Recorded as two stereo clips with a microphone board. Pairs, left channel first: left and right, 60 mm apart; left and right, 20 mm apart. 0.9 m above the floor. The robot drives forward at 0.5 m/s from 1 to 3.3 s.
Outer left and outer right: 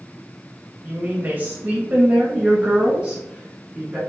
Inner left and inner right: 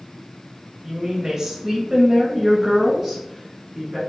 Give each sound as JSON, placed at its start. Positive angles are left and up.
{"t": 0.8, "sound": "a woman speaking", "side_deg": -25, "distance_m": 0.8}